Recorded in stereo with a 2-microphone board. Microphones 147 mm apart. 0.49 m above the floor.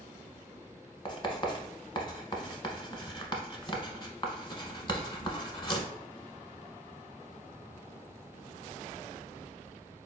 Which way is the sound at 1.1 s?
35° left (ahead or behind).